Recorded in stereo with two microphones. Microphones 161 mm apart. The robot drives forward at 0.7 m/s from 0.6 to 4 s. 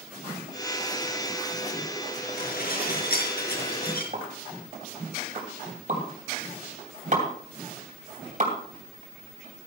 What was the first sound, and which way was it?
Dishes clattering, 65° left (ahead or behind).